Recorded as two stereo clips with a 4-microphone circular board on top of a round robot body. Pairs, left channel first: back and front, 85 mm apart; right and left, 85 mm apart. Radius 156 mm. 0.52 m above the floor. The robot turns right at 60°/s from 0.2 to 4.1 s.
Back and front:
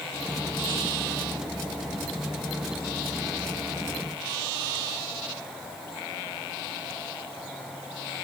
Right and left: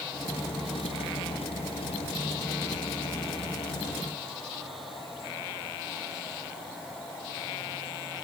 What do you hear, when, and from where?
Only background noise.